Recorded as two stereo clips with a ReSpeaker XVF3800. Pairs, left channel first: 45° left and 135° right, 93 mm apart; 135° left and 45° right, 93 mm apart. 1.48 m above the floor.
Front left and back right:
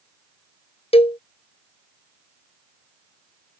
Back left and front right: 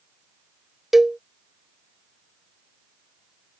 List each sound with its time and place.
0.9 s a cowbell: 40° left